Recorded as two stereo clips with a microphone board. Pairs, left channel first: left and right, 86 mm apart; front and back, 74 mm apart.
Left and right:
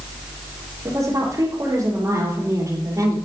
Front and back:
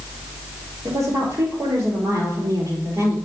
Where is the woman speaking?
140° right, 4 m.